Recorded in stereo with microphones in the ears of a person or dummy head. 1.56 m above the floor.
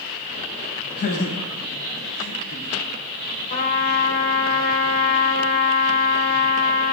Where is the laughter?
55° left (ahead or behind), 9 m; by 2.7 s 45° left (ahead or behind), 8.5 m.